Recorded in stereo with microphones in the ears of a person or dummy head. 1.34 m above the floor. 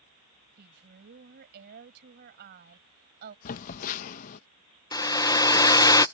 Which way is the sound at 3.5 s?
45° left (ahead or behind).